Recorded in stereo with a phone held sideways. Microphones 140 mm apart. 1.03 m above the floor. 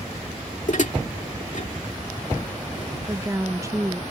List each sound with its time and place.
0.7 s dishes clattering: 60° left (ahead or behind)
3.0 s a woman speaking: 25° right (ahead or behind)